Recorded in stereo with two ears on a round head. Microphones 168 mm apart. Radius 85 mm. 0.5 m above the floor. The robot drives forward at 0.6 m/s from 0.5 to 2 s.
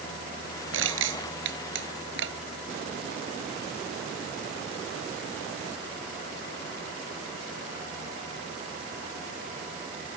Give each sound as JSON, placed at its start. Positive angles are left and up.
{"t": 0.7, "sound": "crushing", "side_deg": -80}